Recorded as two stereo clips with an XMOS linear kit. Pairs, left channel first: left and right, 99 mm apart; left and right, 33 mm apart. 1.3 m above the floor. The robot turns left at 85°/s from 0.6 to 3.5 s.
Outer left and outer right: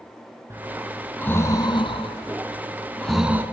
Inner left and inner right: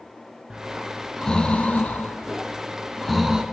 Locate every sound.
0.5 s breathing: 30° right (ahead or behind), 2 m; by 3.4 s 20° right (ahead or behind), 2 m